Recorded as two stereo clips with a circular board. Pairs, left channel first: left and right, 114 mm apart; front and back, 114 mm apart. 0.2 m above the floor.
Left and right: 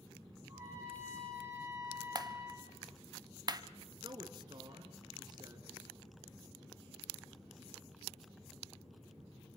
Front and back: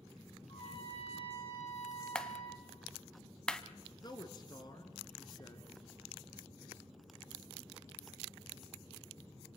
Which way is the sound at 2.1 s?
80° right.